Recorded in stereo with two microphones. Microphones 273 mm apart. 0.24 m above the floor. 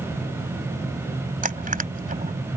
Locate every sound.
1.4 s crushing: 30° right (ahead or behind)